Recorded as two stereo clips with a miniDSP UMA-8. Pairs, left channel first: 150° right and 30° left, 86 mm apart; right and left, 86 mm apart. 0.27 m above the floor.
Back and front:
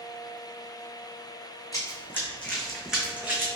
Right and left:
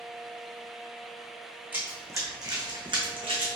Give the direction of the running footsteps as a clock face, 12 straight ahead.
7 o'clock.